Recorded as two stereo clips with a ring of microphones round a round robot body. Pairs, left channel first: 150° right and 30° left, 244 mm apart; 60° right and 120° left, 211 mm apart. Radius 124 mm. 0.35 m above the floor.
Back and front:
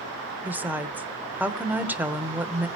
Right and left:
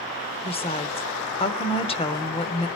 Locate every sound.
0.4 s a woman speaking: 45° right, 0.9 m